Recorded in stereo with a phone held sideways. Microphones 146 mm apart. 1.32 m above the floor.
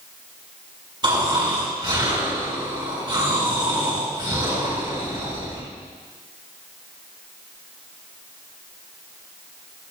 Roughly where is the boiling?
I don't hear boiling.